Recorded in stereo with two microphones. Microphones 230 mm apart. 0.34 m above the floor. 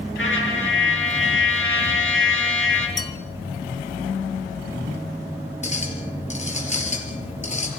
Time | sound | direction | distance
0.2 | a trumpet | 60° left (ahead or behind) | 5.5 m
3.0 | a bell | 15° left (ahead or behind) | 1.5 m
5.6 | a clink | 30° left (ahead or behind) | 3.5 m